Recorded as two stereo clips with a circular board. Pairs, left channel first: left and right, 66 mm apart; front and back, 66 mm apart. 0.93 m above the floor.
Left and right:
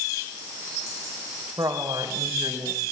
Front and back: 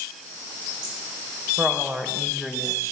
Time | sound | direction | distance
1.6 | a woman speaking | 115° right | 5 m